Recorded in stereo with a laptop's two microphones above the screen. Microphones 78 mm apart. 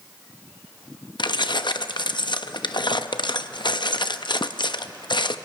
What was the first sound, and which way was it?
Keys jangling, 75° left (ahead or behind).